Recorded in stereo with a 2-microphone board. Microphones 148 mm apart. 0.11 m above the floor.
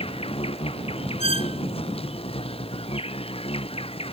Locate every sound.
0.0 s an insect: 40° left (ahead or behind)
1.2 s a squeak: 55° left (ahead or behind)